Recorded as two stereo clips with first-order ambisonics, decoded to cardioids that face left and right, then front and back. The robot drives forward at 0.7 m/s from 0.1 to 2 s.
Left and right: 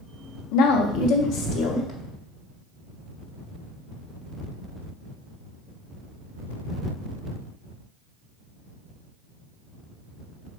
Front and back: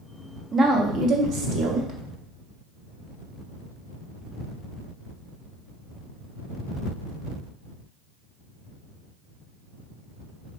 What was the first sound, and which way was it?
A woman speaking, 110° left.